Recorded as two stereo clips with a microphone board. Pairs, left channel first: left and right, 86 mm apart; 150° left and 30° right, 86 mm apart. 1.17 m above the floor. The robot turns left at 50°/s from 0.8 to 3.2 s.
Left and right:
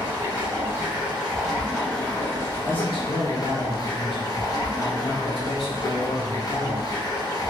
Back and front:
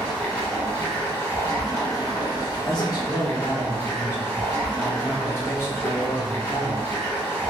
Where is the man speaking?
120° left, 1.2 m; by 6.9 s 90° left, 1.2 m.